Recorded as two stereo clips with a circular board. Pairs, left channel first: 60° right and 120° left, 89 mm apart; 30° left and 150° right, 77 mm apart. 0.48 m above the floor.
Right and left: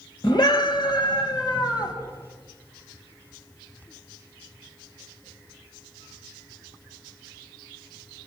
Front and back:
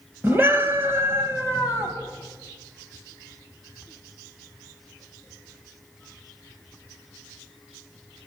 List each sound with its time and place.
0.2 s a scream: 90° right, 2.5 m; by 1.9 s 95° right, 3.5 m